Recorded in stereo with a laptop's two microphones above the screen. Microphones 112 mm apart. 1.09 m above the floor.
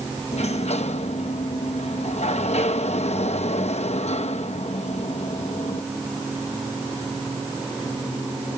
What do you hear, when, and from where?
0.3 s a sliding door: 75° left (ahead or behind)